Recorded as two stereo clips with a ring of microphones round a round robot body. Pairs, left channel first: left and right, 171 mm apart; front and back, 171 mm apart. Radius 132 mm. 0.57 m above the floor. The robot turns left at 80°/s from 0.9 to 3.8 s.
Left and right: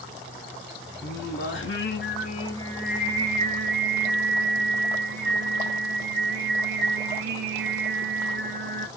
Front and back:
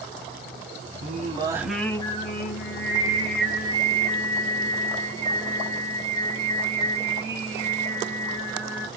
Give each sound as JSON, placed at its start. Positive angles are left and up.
{"t": 1.0, "sound": "singing", "azimuth_deg": 145, "distance_m": 1.2}